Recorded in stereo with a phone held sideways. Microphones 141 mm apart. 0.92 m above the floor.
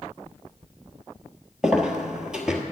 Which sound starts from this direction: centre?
Footsteps, at 1.6 s.